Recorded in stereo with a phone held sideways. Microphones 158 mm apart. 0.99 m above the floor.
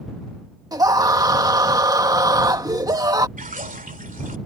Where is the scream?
25° right (ahead or behind).